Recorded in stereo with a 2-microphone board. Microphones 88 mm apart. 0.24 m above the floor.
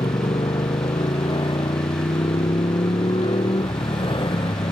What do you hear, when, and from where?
0.0 s a motorcycle: 85° left